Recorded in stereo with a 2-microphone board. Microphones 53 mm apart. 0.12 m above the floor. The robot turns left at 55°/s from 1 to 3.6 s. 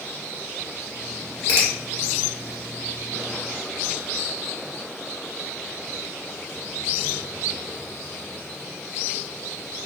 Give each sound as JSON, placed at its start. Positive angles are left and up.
{"t": 1.5, "sound": "a finger snap", "side_deg": 45, "distance_m": 1.8}